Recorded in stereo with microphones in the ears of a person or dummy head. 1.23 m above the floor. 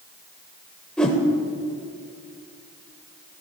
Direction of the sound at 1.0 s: 5° left (ahead or behind).